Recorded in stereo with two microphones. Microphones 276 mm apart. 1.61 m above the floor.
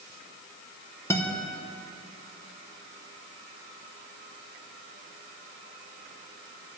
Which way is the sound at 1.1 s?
10° left (ahead or behind).